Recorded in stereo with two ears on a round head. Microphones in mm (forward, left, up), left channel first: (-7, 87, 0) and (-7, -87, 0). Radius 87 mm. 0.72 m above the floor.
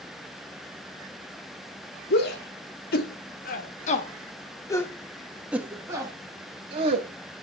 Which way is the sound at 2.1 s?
55° left (ahead or behind).